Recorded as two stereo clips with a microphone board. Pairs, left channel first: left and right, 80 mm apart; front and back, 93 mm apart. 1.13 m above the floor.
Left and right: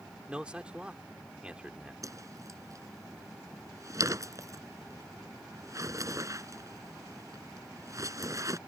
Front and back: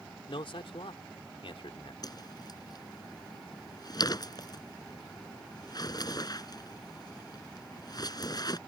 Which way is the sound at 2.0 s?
45° right.